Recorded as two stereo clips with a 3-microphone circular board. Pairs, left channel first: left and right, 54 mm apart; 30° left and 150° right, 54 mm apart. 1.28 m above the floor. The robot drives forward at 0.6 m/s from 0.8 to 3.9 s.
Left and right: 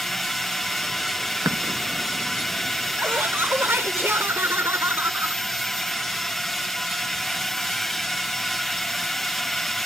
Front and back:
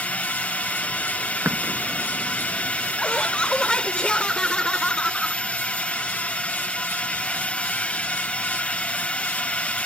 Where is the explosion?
105° right.